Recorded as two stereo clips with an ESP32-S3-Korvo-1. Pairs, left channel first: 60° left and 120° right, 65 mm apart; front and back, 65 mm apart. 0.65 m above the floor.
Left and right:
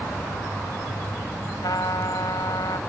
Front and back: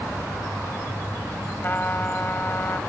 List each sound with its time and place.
1.6 s a trumpet: 60° left